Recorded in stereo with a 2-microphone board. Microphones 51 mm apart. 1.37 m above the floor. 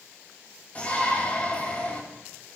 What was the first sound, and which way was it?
A shout, 30° left (ahead or behind).